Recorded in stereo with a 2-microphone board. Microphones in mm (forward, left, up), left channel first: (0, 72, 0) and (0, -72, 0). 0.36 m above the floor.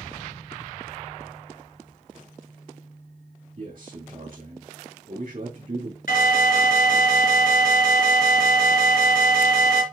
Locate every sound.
3.6 s a man speaking: 65° right (ahead or behind), 3 m
6.1 s an alarm: 80° left, 3 m